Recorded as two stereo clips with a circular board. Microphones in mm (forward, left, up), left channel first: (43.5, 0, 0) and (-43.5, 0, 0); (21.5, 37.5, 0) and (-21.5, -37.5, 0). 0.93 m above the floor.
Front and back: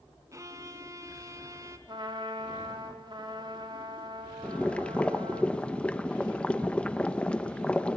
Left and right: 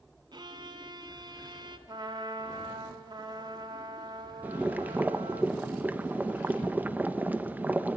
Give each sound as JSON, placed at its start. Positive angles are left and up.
{"t": 0.3, "sound": "a violin", "azimuth_deg": -135, "distance_m": 1.3}
{"t": 1.9, "sound": "a trumpet", "azimuth_deg": -150, "distance_m": 2.0}
{"t": 4.4, "sound": "boiling", "azimuth_deg": -65, "distance_m": 1.0}